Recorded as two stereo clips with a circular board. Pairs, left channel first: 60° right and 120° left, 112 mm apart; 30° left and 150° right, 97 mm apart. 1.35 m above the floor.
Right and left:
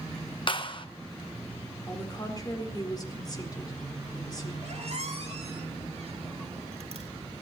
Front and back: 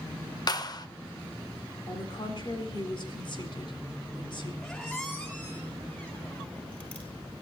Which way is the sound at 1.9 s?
5° right.